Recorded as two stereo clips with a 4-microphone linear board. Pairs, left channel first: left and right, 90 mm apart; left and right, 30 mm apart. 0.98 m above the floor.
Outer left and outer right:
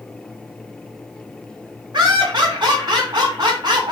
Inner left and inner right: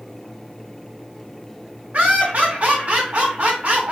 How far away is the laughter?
About 2.5 m.